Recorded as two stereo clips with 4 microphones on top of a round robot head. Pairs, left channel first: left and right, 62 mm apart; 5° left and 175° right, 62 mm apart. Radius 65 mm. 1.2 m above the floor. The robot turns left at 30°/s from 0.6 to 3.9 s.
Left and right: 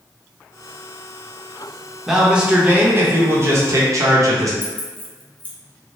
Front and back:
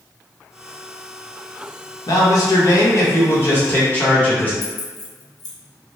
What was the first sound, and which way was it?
A man speaking, 5° right.